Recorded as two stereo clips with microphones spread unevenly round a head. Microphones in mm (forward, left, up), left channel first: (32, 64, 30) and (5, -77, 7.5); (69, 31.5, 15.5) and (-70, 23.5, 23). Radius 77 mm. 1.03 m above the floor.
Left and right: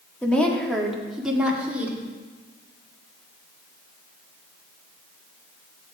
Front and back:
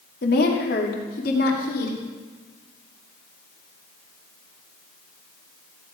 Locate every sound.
0.2 s a woman speaking: 5° right, 2 m; by 2.0 s 20° right, 3 m